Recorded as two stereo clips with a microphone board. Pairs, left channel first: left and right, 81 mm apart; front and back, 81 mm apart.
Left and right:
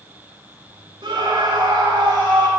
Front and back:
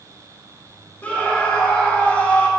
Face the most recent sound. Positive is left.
turn(degrees=-70)